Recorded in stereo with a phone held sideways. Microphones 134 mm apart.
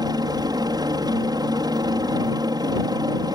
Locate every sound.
0.0 s a helicopter: 30° right (ahead or behind)